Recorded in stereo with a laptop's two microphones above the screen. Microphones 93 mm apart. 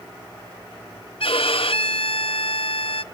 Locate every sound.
1.2 s a violin: 75° left (ahead or behind), 0.7 m